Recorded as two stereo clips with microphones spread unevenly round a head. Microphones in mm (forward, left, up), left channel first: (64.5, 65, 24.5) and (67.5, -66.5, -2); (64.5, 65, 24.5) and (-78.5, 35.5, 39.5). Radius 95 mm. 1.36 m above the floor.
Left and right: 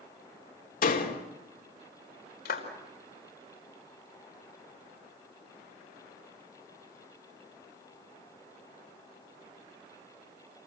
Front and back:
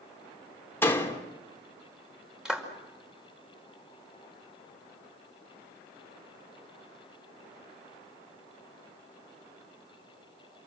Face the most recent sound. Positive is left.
turn(degrees=105)